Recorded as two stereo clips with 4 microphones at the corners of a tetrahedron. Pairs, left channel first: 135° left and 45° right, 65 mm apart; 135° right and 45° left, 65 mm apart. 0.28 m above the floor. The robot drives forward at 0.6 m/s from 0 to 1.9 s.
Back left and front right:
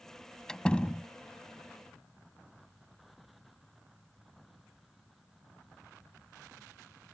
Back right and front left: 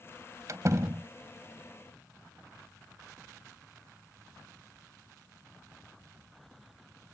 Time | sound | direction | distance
0.5 | a door slam | 60° left | ?